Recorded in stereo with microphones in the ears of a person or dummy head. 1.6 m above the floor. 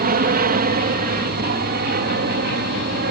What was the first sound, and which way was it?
An aircraft, 45° right (ahead or behind).